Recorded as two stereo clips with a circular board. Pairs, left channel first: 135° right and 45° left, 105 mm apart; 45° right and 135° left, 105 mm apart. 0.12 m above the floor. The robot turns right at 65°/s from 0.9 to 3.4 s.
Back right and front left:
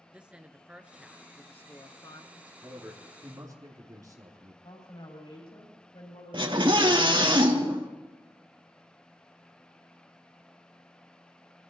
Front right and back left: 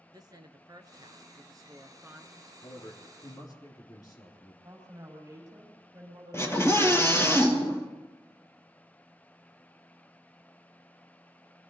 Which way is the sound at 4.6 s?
165° right.